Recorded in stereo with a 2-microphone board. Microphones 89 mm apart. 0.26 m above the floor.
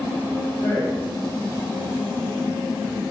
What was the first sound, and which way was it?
A man speaking, 30° left (ahead or behind).